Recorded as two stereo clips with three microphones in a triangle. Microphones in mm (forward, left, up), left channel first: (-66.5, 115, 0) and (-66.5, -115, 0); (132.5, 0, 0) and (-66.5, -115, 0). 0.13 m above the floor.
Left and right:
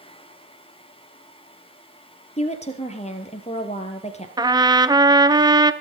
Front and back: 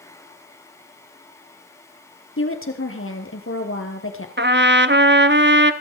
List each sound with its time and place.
2.4 s a woman speaking: 35° left, 3 m
4.4 s a trumpet: 160° right, 0.9 m